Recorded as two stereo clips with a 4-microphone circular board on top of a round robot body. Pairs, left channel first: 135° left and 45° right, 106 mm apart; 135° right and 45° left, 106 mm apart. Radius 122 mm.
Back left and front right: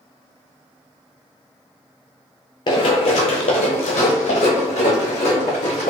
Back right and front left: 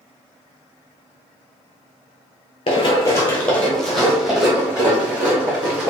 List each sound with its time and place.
2.7 s running footsteps: 175° right, 0.6 m; by 5.9 s 120° left, 2 m